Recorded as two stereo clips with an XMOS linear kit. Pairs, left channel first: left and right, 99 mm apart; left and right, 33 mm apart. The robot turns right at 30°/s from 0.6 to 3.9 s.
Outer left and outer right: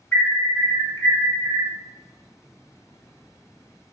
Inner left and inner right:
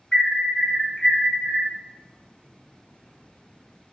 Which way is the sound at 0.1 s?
30° left.